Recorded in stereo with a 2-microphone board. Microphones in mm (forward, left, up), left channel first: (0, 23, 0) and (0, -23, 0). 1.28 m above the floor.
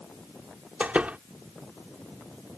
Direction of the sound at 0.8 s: 30° right (ahead or behind).